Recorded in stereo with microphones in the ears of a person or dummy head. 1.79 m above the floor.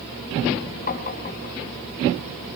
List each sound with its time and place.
0.9 s tapping: 45° left (ahead or behind), 3 m